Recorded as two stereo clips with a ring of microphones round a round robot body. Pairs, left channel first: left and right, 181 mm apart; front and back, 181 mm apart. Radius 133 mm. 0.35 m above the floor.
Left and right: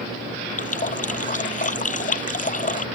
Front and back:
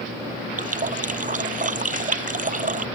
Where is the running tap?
135° left.